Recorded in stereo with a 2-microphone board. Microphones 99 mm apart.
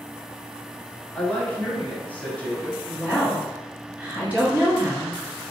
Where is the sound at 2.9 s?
15° right (ahead or behind), 1.9 m.